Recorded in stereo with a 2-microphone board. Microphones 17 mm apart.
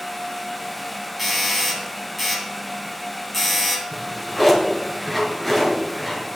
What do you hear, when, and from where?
1.2 s a doorbell: centre (ahead or behind), 3.5 m
3.9 s a drawer: centre (ahead or behind), 3 m